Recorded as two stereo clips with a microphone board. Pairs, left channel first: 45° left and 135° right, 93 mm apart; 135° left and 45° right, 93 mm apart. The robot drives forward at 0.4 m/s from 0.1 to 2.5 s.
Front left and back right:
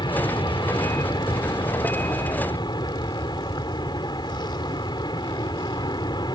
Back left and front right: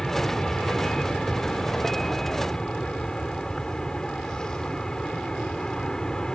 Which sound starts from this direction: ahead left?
An aircraft, at 0.0 s.